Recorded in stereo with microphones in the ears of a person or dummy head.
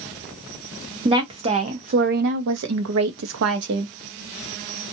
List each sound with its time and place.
1.1 s a woman speaking: 25° right (ahead or behind), 1.1 m; by 3.9 s 60° right (ahead or behind), 0.9 m